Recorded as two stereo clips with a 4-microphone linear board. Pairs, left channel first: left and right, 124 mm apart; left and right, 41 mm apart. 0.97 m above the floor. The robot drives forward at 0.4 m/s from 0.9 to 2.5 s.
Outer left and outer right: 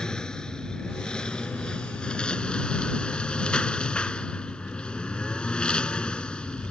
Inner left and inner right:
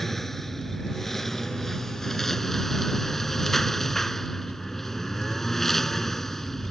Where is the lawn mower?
5° left (ahead or behind); by 6.7 s 10° left (ahead or behind).